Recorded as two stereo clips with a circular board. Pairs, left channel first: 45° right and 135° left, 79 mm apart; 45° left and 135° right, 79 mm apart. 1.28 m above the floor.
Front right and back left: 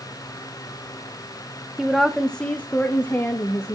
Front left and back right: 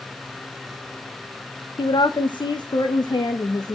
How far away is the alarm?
I don't hear an alarm.